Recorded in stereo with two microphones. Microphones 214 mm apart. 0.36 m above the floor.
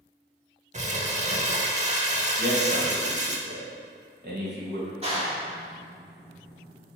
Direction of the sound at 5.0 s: 30° right (ahead or behind).